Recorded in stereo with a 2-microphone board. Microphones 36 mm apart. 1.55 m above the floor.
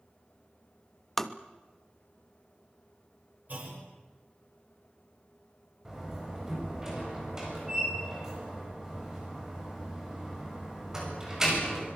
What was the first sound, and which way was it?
Tapping, 5° left (ahead or behind).